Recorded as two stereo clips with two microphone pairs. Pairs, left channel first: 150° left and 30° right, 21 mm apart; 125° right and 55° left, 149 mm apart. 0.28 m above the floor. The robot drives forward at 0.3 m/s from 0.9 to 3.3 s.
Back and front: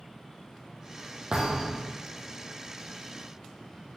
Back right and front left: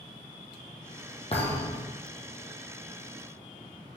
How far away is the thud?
About 2.5 m.